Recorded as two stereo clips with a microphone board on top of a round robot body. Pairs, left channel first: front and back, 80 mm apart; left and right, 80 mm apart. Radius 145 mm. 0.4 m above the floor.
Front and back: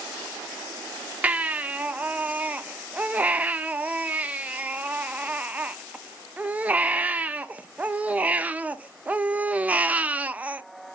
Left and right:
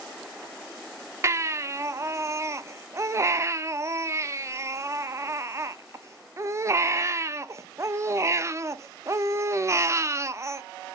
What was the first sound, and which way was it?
A baby crying, 115° right.